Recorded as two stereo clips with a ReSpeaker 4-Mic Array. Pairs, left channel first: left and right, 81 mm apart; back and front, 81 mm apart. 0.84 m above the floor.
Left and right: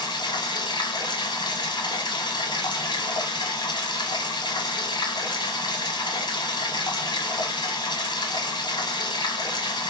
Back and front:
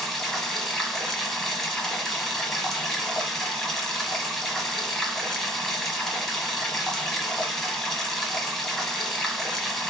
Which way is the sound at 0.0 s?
95° left.